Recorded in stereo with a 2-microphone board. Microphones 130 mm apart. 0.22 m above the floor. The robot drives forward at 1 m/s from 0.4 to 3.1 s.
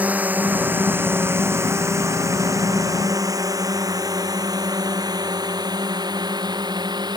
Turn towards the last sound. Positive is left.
turn(degrees=-35)  # may be behind; listen again after turning